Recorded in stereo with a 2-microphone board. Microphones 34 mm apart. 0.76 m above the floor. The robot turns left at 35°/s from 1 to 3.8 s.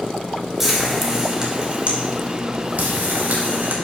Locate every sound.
0.6 s frying: 10° right (ahead or behind), 2.5 m; by 3.8 s 70° right (ahead or behind), 2.5 m